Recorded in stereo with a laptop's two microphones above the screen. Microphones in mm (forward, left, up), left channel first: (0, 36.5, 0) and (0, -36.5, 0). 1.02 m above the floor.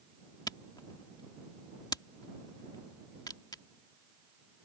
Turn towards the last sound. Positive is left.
turn(degrees=70)  # may be behind; listen again after turning